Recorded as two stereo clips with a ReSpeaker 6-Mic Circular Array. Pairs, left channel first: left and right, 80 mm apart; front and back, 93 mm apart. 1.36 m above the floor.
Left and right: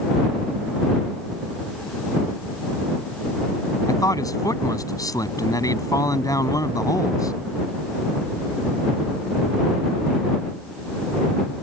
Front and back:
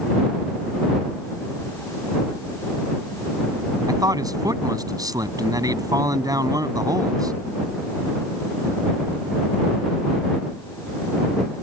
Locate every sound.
3.9 s a man speaking: 130° left